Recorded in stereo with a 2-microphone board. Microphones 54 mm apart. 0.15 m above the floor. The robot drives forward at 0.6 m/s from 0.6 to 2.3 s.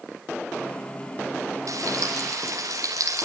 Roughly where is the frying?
Right.